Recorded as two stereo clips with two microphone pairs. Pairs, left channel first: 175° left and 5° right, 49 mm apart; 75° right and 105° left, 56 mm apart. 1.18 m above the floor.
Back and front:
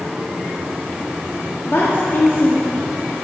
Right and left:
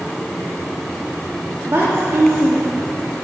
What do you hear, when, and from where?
1.7 s a woman speaking: 140° left, 2 m